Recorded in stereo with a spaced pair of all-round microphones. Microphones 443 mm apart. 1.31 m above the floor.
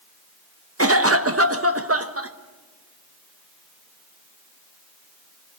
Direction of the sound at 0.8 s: 30° right (ahead or behind).